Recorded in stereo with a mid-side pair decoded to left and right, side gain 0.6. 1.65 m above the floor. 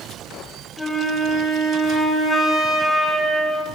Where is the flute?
10° left, 4.5 m.